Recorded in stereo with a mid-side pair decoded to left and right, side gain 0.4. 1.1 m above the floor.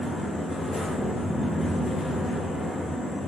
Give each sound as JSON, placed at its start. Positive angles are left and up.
{"t": 0.0, "sound": "a fan", "azimuth_deg": 35, "distance_m": 1.5}